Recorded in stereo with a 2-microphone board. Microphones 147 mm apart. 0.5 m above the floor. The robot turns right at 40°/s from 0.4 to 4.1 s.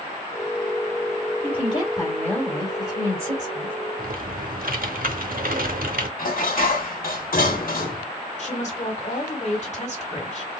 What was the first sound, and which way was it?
A woman speaking, 130° left.